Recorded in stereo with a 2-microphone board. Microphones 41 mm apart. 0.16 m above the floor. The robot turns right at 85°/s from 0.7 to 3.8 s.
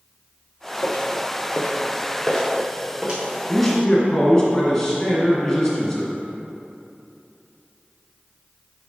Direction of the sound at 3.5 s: Centre (ahead or behind).